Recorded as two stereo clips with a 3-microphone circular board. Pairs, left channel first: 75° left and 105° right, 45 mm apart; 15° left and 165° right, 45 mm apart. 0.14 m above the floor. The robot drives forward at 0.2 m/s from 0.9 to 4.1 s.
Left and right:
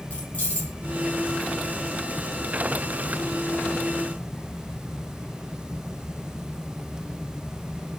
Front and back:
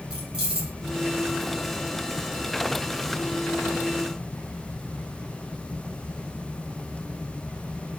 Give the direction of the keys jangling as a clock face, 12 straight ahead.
8 o'clock.